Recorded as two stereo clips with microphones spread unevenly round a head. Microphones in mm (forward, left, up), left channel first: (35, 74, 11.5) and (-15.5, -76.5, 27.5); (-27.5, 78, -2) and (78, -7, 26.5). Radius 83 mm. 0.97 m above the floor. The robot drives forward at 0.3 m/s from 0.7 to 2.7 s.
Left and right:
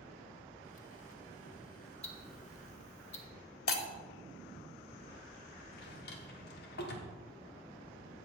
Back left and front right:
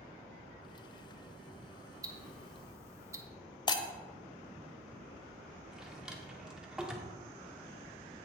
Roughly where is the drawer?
Ahead left.